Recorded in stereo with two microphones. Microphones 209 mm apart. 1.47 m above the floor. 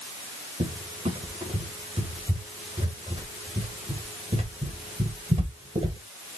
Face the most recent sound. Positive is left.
turn(degrees=-30)  # may be behind; listen again after turning